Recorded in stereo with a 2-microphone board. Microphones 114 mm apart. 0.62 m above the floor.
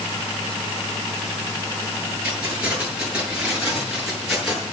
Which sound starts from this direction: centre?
Keys jangling, at 2.2 s.